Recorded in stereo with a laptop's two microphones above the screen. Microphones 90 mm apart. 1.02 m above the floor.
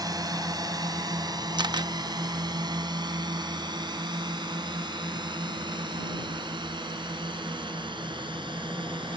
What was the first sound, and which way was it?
A drone, 45° right (ahead or behind).